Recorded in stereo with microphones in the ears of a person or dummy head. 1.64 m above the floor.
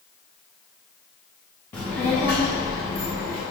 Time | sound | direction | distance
1.7 | a child speaking | 10° left (ahead or behind) | 0.8 m